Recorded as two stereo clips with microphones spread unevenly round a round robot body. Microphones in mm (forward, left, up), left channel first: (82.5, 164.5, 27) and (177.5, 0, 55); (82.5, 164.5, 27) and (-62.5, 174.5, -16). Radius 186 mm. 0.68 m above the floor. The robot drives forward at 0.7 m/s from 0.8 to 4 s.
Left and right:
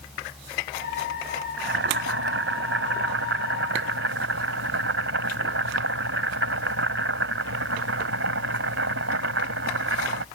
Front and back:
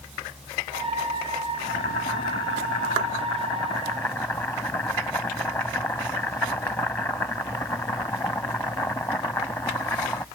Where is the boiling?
60° right; by 10.2 s 85° right.